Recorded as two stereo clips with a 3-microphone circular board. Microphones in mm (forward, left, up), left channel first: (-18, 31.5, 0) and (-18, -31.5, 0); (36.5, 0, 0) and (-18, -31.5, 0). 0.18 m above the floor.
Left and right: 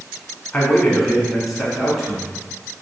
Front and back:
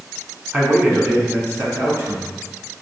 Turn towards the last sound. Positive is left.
turn(degrees=-170)